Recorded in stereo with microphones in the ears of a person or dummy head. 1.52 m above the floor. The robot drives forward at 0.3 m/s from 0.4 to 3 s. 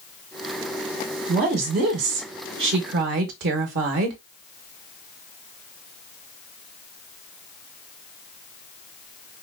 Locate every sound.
1.3 s a woman speaking: 50° right (ahead or behind), 1.2 m; by 4.2 s 65° right (ahead or behind), 1.1 m